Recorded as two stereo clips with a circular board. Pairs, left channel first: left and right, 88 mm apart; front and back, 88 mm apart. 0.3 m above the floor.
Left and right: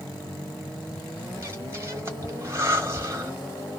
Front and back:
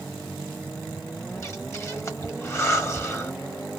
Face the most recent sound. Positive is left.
turn(degrees=-45)